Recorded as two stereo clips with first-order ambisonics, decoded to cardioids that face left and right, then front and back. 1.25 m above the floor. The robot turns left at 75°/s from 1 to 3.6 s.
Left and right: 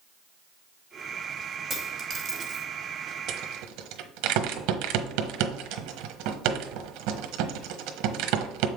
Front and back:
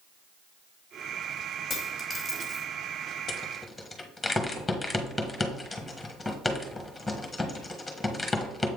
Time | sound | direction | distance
1.7 | a dropped coin | 35° right | 1.1 m
3.3 | a rattle | 60° right | 1.1 m